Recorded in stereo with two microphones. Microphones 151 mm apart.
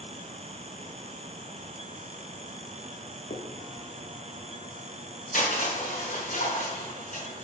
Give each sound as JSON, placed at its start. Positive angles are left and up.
{"t": 3.3, "sound": "a finger snap", "side_deg": 75, "distance_m": 1.1}
{"t": 5.3, "sound": "crushing", "side_deg": 75, "distance_m": 3.5}